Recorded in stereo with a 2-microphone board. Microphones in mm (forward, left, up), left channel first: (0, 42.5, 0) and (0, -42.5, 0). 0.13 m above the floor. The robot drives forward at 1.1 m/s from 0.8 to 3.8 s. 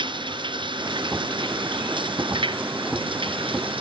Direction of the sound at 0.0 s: 65° right (ahead or behind).